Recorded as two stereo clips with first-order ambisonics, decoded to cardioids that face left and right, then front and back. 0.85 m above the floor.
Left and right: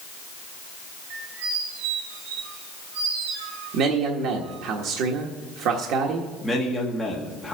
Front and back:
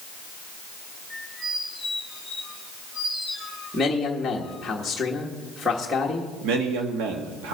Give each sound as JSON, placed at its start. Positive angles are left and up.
{"t": 1.1, "sound": "a squeak", "azimuth_deg": -85, "distance_m": 3.0}
{"t": 3.7, "sound": "a man speaking", "azimuth_deg": -85, "distance_m": 1.3}
{"t": 6.4, "sound": "a man speaking", "azimuth_deg": 180, "distance_m": 1.5}